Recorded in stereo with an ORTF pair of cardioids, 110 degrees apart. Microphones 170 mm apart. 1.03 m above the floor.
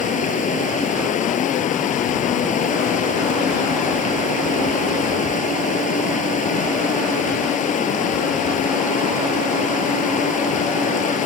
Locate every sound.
0.0 s running water: 50° left